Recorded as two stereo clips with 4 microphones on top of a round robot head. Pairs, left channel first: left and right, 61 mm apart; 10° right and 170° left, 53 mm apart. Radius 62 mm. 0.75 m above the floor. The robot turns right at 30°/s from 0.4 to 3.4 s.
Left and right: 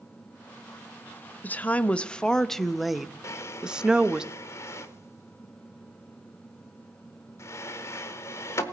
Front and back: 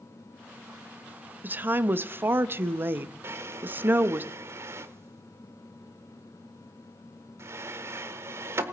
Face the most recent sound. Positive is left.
turn(degrees=135)